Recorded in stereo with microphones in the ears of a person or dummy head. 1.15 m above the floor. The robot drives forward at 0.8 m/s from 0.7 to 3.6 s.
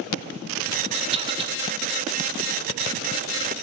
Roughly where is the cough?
Right.